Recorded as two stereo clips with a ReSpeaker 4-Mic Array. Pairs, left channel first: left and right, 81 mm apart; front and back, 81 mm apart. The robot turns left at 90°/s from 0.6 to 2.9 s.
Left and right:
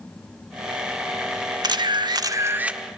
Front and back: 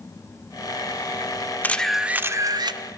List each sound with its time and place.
1.6 s a camera shutter: 65° right, 0.7 m; by 2.8 s 170° right, 0.7 m